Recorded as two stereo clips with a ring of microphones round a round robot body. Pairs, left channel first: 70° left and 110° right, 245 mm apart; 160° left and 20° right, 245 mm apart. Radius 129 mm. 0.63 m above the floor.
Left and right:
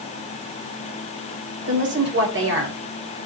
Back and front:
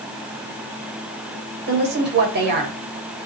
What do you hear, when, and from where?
1.7 s a woman speaking: 70° right, 3 m